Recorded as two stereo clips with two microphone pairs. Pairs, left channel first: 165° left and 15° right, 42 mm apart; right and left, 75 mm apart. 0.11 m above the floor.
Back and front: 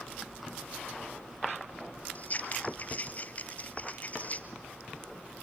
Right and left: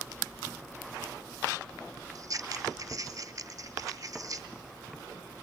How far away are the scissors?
About 1.1 m.